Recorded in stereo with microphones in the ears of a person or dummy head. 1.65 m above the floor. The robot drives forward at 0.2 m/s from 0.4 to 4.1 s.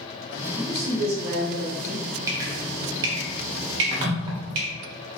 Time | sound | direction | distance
0.6 | a man speaking | 55° right (ahead or behind) | 1.1 m
2.3 | dripping | 20° right (ahead or behind) | 0.6 m